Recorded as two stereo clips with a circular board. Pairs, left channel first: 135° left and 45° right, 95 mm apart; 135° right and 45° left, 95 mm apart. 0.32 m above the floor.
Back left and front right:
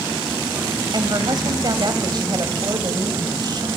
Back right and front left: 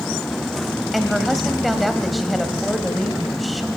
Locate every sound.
0.9 s a woman speaking: 45° right, 1.9 m